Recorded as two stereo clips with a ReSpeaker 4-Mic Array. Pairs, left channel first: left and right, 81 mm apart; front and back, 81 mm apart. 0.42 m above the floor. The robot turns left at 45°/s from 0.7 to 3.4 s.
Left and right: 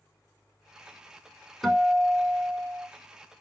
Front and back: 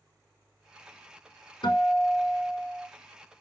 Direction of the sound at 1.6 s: Straight ahead.